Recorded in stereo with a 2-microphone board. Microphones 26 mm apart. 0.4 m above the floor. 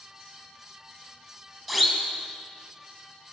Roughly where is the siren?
Centre.